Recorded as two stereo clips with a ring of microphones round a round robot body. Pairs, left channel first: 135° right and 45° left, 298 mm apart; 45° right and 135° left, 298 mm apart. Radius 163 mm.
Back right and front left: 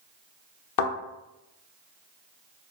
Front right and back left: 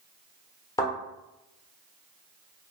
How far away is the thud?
About 0.6 m.